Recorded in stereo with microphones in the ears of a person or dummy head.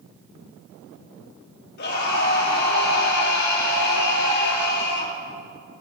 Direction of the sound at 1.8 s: 55° left (ahead or behind).